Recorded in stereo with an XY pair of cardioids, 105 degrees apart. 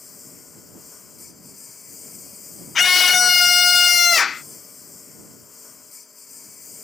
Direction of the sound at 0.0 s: 35° left.